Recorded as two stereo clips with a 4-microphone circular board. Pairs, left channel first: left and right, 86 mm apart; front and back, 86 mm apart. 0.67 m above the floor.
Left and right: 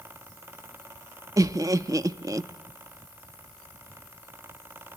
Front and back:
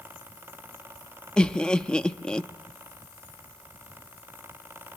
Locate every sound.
1.4 s laughter: 75° right, 0.6 m